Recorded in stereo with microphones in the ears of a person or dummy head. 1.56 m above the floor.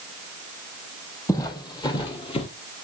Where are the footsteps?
15° left (ahead or behind), 2.5 m; by 2.5 s 30° left (ahead or behind), 2 m.